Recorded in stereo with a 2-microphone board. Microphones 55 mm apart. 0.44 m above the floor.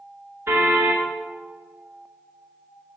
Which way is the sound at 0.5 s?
50° right (ahead or behind).